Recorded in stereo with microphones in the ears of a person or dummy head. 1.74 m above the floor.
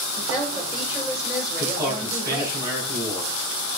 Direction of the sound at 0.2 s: 10° right (ahead or behind).